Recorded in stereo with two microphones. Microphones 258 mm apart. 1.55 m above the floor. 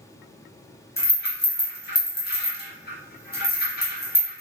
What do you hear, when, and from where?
1.0 s a rattle: 40° left (ahead or behind), 1.0 m